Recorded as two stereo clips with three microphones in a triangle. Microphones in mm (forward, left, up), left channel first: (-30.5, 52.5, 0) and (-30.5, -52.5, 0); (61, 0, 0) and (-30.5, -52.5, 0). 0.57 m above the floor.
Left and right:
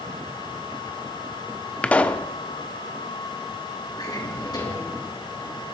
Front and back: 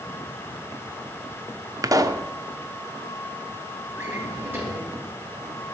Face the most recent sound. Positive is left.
turn(degrees=140)